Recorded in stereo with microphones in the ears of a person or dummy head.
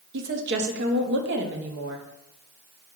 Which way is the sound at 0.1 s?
65° right (ahead or behind).